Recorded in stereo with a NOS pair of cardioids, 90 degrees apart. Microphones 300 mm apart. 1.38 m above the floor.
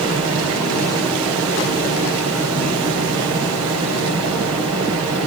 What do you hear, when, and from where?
0.0 s a fan: 60° right, 7.5 m